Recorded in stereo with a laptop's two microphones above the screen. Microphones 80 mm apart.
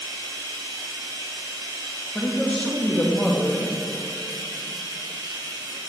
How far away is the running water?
About 2 m.